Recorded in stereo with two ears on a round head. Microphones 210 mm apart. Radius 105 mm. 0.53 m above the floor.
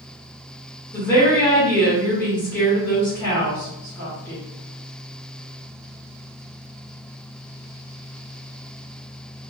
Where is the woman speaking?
10° left (ahead or behind), 1.2 m.